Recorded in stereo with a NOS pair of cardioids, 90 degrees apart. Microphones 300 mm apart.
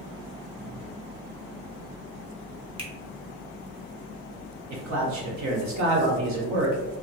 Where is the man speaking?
70° right, 1.1 m.